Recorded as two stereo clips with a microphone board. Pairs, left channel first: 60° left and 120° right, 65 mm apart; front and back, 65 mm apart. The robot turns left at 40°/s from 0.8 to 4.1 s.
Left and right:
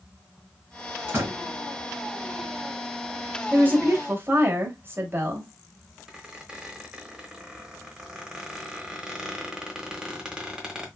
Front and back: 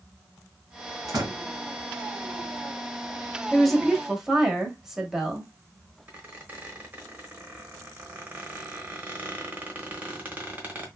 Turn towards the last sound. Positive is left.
turn(degrees=175)